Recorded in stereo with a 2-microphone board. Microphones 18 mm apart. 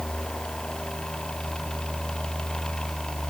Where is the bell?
I don't hear a bell.